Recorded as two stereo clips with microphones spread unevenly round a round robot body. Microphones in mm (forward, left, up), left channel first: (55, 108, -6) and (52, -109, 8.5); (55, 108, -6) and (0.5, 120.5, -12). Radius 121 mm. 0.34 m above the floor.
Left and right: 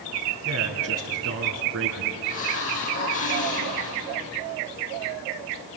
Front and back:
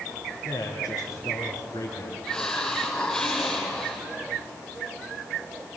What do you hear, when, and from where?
0.5 s a man speaking: 75° right, 4 m
2.2 s a hiss: 65° left, 4 m